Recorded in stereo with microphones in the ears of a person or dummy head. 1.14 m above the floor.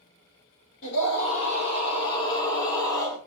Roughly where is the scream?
Left.